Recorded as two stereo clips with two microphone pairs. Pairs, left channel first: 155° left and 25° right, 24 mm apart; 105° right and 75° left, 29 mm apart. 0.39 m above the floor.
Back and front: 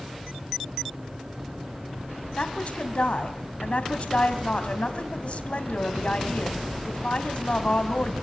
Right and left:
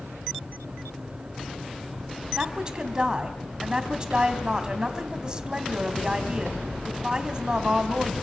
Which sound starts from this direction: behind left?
A woman speaking, at 2.4 s.